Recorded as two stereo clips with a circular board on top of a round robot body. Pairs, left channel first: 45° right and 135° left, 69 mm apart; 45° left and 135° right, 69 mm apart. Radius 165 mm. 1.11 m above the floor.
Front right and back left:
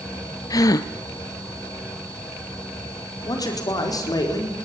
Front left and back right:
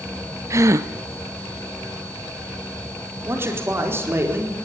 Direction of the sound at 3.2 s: 80° right.